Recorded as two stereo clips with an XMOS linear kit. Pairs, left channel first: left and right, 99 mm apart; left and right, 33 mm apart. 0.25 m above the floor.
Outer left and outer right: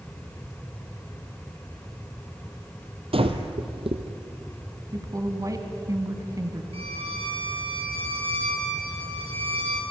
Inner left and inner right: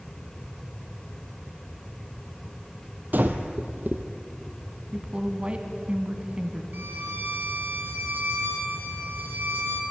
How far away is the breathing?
About 1.8 m.